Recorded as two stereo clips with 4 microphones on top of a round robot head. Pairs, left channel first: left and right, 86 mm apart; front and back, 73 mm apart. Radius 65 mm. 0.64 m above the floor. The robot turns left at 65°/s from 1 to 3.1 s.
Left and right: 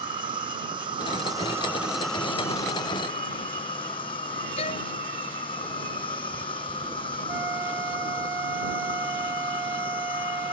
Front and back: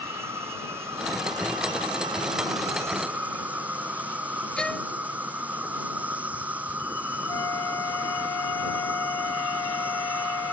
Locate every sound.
0.0 s an insect: 115° right; by 10.5 s 110° left
4.6 s a violin: 80° left
7.3 s a flute: 35° right